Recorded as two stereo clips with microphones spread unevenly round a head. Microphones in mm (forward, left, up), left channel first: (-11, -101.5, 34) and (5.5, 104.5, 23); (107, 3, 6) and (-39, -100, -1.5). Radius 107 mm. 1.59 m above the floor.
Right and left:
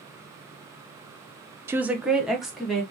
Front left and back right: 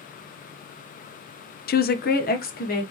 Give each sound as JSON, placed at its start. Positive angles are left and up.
{"t": 1.7, "sound": "a woman speaking", "azimuth_deg": 5, "distance_m": 0.5}